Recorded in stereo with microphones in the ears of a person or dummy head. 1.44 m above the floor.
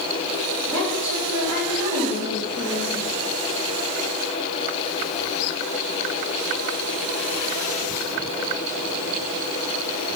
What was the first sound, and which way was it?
A woman speaking, 80° right.